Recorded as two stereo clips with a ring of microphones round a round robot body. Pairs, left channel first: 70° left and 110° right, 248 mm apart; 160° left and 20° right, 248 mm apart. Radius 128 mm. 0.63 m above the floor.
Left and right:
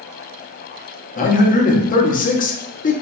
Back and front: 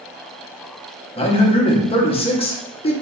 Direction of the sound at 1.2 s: 105° left.